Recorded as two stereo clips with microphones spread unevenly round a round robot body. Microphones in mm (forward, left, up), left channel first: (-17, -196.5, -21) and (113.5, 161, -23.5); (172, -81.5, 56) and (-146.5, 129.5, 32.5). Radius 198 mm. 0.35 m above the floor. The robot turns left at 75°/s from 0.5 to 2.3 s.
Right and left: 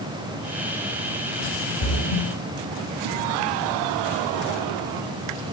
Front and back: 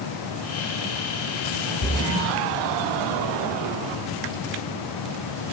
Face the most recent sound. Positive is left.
turn(degrees=-105)